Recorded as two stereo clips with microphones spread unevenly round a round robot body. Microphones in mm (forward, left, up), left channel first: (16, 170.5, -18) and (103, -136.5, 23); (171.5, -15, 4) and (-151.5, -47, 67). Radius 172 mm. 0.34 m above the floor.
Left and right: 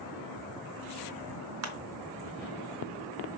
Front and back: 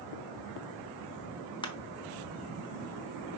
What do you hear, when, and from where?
1.6 s crushing: 50° right, 1.2 m